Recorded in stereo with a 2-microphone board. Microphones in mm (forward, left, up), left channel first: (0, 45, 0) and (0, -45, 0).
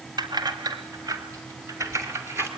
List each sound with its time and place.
0.2 s keys jangling: 50° right (ahead or behind), 2 m; by 2.5 s 25° right (ahead or behind), 3 m